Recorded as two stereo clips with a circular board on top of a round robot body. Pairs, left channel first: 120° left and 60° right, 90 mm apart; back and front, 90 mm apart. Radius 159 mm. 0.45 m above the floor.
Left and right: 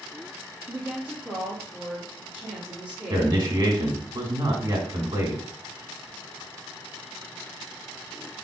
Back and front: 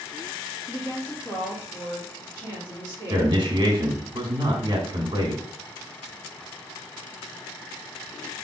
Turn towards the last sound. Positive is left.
turn(degrees=-25)